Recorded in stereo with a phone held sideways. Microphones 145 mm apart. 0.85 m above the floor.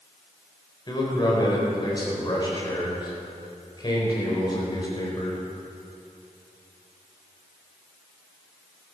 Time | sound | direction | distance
0.9 | a man speaking | 30° left (ahead or behind) | 4 m